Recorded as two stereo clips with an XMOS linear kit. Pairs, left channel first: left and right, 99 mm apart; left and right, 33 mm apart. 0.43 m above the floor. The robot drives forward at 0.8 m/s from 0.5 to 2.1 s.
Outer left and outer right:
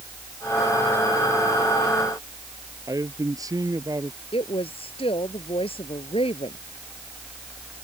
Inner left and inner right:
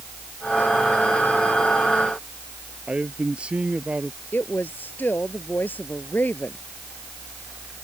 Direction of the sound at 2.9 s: 35° right (ahead or behind).